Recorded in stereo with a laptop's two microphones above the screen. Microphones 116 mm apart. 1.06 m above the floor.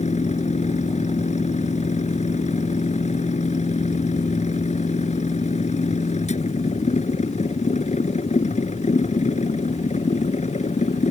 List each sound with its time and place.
0.0 s a machine running: 90° left